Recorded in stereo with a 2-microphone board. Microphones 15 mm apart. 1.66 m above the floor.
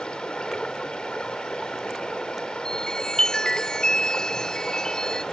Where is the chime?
55° left (ahead or behind).